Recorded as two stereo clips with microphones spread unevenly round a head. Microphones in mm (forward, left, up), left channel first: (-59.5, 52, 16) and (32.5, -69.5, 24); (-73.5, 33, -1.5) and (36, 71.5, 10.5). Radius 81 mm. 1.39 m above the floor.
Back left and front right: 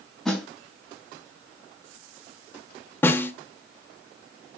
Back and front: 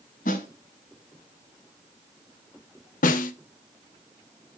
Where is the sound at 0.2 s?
145° right, 4 m.